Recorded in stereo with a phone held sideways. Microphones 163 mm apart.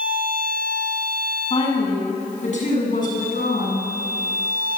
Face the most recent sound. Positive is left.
turn(degrees=65)  # may be behind; listen again after turning